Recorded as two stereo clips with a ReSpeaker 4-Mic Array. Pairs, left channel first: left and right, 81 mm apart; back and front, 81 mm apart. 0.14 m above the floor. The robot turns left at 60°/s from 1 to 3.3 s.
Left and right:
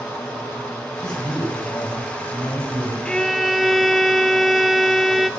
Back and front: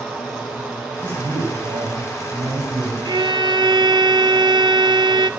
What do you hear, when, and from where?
1.0 s a man speaking: 70° left, 7.5 m; by 3.0 s 45° right, 7.5 m
3.0 s a violin: 15° left, 0.5 m; by 5.3 s straight ahead, 0.5 m